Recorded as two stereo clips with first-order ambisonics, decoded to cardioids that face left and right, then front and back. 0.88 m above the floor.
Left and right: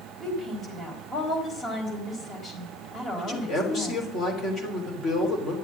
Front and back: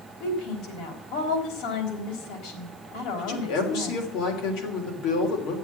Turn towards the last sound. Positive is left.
turn(degrees=25)